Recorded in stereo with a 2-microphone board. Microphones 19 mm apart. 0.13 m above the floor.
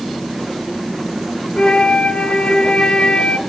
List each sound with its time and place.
1.6 s a flute: 60° left (ahead or behind), 0.6 m